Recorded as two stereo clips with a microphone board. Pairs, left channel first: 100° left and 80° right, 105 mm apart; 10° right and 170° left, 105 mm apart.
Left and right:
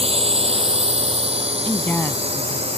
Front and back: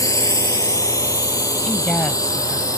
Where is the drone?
70° right; by 2.8 s 65° right.